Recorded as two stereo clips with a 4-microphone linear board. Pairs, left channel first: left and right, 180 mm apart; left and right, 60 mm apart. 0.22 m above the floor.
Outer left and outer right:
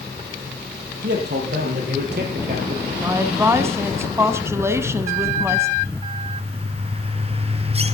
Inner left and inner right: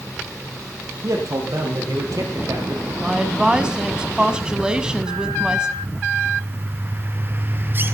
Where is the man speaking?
65° right (ahead or behind), 7 m; by 2.9 s 70° right (ahead or behind), 4.5 m.